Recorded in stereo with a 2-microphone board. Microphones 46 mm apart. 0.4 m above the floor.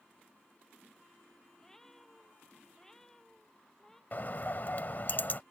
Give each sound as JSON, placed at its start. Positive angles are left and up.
{"t": 1.6, "sound": "a cat meowing", "side_deg": 10}
{"t": 4.1, "sound": "a bird", "side_deg": 45}